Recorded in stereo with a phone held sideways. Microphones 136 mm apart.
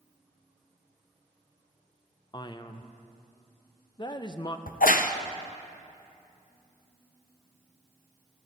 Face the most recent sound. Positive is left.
turn(degrees=85)